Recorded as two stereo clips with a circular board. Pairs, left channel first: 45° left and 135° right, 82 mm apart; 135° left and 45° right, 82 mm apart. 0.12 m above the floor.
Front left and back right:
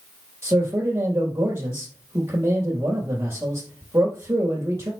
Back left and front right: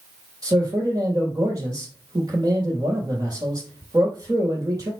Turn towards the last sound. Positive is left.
turn(degrees=-80)